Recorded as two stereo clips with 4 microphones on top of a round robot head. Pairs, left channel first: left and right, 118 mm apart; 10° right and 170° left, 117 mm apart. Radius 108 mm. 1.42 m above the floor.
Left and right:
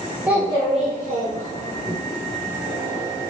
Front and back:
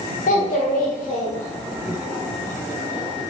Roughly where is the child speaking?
Ahead.